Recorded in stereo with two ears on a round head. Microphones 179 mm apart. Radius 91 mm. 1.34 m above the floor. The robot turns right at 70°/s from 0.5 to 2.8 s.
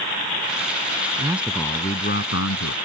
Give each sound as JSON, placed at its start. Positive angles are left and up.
{"t": 1.2, "sound": "a man speaking", "azimuth_deg": -20}